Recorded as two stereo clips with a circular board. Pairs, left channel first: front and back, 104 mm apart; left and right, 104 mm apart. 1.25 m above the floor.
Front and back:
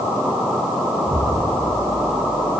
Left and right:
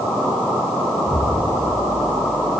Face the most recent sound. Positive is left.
turn(degrees=40)